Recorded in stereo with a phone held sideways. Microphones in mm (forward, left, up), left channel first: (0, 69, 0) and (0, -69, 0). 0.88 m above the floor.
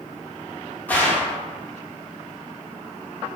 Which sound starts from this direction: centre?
A gunshot, at 0.9 s.